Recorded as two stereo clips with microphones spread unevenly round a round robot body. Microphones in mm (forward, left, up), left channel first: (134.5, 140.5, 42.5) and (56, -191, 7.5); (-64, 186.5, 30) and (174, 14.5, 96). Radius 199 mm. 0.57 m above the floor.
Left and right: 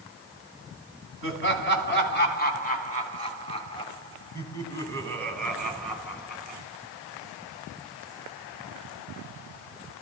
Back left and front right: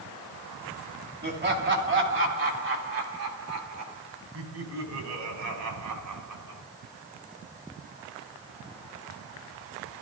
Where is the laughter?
20° left, 4 m; by 6.6 s 15° right, 4.5 m.